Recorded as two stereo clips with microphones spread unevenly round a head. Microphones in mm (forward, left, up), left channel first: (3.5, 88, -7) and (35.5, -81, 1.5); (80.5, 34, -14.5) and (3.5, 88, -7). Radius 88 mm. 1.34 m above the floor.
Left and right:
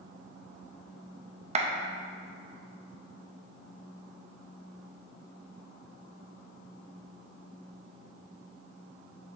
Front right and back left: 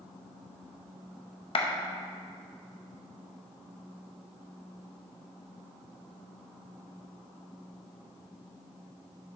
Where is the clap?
35° right, 0.8 m.